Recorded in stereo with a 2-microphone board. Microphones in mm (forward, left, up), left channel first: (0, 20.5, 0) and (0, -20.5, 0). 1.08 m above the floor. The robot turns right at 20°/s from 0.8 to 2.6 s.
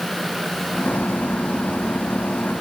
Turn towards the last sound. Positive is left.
No sound to turn to.